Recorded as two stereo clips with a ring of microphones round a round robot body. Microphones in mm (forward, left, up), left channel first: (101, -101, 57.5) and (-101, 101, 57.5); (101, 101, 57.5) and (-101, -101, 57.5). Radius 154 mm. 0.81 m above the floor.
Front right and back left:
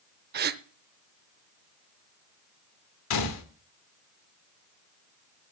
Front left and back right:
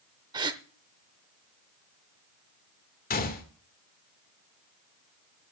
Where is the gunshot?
15° right, 2 m.